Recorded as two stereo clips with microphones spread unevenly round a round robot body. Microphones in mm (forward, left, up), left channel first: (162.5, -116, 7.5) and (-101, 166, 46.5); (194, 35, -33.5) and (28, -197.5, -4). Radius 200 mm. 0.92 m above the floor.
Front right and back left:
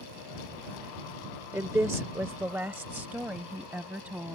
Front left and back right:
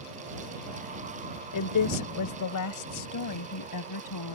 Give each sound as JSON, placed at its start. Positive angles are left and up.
{"t": 1.5, "sound": "a woman speaking", "azimuth_deg": 50}